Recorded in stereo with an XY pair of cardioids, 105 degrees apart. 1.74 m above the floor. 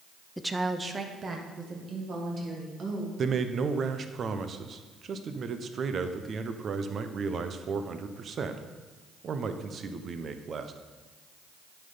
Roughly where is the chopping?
No chopping in this recording.